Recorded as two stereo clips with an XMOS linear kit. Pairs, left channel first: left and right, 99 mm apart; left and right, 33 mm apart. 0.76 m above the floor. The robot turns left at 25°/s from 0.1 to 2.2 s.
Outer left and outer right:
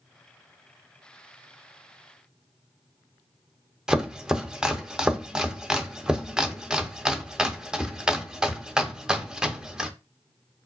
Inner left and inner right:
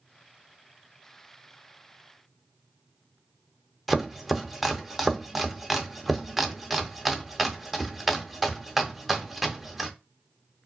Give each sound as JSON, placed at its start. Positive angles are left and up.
{"t": 3.9, "sound": "chopping", "side_deg": -5, "distance_m": 0.5}